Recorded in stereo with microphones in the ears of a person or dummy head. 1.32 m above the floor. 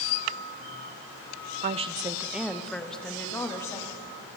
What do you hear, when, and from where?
1.6 s a woman speaking: 40° right (ahead or behind), 0.7 m; by 4.1 s 20° left (ahead or behind), 3 m